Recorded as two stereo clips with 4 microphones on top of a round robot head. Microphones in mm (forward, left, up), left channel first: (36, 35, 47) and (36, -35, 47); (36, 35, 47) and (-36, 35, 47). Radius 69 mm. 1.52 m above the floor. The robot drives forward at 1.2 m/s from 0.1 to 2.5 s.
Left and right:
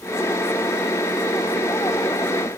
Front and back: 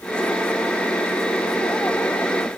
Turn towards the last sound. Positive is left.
No sound to turn to.